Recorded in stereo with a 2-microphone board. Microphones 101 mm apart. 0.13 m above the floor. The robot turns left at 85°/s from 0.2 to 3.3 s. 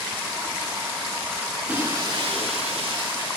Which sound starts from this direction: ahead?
Breaking glass, at 1.7 s.